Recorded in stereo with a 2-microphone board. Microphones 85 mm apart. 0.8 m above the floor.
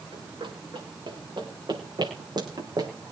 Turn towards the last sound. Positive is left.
turn(degrees=-50)  # may be behind; listen again after turning